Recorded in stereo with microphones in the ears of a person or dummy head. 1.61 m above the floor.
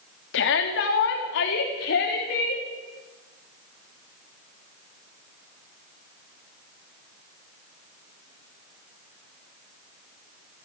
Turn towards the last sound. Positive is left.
turn(degrees=70)  # may be behind; listen again after turning